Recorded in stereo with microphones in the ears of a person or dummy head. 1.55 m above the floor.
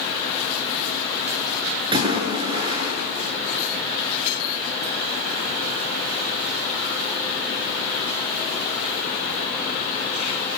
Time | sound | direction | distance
1.9 | a splash | 30° right (ahead or behind) | 7.5 m